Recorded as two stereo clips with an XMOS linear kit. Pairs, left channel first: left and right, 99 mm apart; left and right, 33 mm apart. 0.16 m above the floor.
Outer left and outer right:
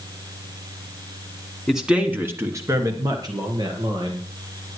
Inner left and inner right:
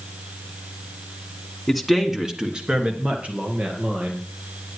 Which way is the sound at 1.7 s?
Centre (ahead or behind).